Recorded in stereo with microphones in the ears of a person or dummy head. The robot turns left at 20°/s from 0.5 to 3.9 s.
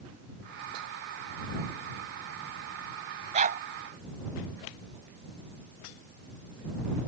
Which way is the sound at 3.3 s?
40° right (ahead or behind).